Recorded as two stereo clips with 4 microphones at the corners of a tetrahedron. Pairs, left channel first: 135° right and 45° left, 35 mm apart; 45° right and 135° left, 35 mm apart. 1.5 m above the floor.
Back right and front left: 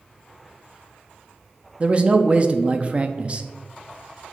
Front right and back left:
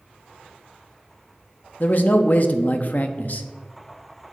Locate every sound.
1.8 s a man speaking: 10° right, 0.6 m